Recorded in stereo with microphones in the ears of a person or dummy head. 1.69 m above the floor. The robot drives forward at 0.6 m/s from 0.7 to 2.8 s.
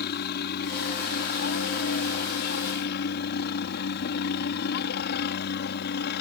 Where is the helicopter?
50° left (ahead or behind).